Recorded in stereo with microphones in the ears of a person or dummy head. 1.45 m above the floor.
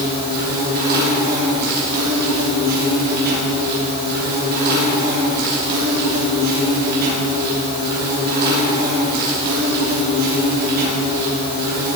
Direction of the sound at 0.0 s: 55° right (ahead or behind).